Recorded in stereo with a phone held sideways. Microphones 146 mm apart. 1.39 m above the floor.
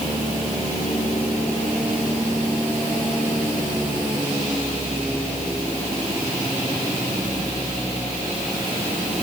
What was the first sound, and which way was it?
Only background noise.